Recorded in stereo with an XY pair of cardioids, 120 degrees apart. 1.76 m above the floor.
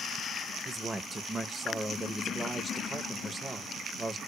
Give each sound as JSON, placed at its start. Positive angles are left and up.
{"t": 0.7, "sound": "a man speaking", "azimuth_deg": -20, "distance_m": 0.6}